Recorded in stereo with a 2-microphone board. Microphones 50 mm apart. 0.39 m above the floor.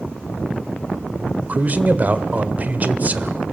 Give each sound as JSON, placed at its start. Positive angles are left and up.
{"t": 1.5, "sound": "a man speaking", "side_deg": -30, "distance_m": 1.1}